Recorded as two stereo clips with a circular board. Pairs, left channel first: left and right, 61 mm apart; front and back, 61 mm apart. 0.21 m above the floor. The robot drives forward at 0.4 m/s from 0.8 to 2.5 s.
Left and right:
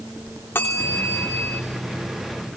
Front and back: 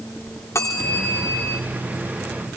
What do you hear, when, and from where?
0.6 s a bell: 35° left, 3.5 m; by 1.6 s 40° left, 3.5 m